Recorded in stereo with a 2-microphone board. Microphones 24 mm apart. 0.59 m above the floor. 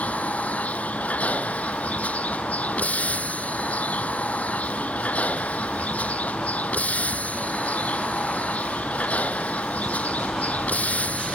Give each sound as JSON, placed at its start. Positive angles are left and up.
{"t": 0.0, "sound": "a vehicle", "side_deg": 75}